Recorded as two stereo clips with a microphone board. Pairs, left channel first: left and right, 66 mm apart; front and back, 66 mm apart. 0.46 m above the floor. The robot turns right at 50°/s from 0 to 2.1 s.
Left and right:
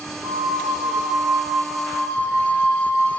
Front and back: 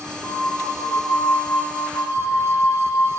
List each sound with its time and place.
0.2 s a flute: 85° right, 2 m; by 3.1 s 10° left, 2 m